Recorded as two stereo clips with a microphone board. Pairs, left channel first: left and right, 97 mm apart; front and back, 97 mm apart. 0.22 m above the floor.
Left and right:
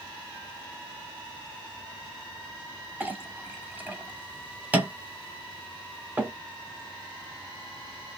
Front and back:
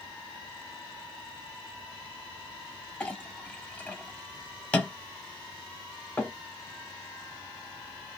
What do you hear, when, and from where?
3.0 s a clink: 55° right, 0.9 m